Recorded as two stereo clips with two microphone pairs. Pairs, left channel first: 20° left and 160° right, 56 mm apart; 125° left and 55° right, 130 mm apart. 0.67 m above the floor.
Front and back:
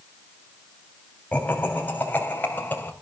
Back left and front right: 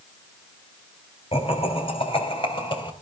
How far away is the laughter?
About 3.5 m.